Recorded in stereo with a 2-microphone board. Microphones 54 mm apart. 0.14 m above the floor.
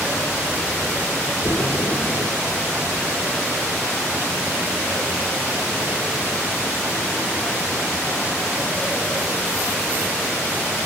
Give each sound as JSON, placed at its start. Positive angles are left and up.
{"t": 1.4, "sound": "a splash", "side_deg": 80, "distance_m": 0.7}